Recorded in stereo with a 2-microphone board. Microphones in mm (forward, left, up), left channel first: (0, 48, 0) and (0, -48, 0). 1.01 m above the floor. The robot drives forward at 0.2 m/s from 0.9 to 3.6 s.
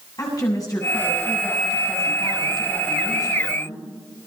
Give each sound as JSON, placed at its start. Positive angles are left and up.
{"t": 0.2, "sound": "a woman speaking", "side_deg": 40, "distance_m": 7.5}